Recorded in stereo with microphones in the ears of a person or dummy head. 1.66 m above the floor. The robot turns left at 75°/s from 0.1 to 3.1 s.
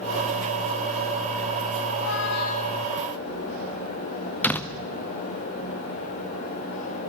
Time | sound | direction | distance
1.9 | a squeak | 95° left | 1.6 m
4.4 | a door slam | 10° left (ahead or behind) | 1.2 m